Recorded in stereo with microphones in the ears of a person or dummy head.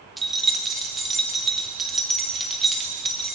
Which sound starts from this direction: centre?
Keys jangling, at 0.2 s.